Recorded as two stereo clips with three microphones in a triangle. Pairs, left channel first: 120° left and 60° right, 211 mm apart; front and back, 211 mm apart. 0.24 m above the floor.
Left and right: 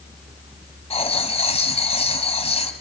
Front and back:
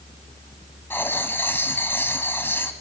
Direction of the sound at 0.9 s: 75° left.